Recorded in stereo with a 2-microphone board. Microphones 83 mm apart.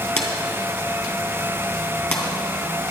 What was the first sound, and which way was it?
A drawer, 25° left (ahead or behind).